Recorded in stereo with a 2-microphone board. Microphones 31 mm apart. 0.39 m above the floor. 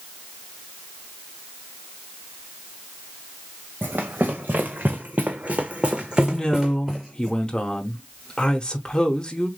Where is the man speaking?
25° left (ahead or behind), 0.9 m.